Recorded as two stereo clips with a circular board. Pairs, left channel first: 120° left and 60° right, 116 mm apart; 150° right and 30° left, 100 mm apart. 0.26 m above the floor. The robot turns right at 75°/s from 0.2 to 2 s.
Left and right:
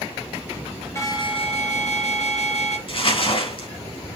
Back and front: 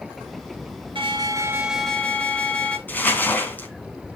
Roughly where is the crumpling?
Behind left.